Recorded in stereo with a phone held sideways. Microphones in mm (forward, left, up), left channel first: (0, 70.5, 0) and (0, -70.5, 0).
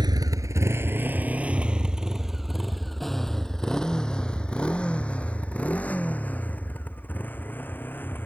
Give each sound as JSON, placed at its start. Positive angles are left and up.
{"t": 0.0, "sound": "a motorcycle", "side_deg": -30}